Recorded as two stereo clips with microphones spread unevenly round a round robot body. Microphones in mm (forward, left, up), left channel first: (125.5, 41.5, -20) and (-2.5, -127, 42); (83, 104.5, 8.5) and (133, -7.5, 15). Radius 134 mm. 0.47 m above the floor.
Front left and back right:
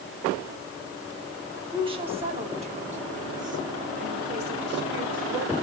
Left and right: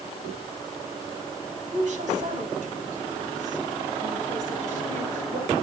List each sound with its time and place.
1.7 s a woman speaking: 60° right, 4.5 m; by 5.5 s 100° right, 2.5 m